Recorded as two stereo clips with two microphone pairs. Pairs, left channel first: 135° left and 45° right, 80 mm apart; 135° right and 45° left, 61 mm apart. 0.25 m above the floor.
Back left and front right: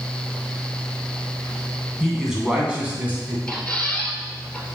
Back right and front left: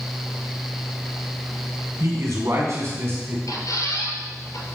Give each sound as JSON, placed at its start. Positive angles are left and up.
{"t": 2.0, "sound": "a man speaking", "azimuth_deg": 45, "distance_m": 2.5}
{"t": 3.5, "sound": "a squeak", "azimuth_deg": -145, "distance_m": 2.0}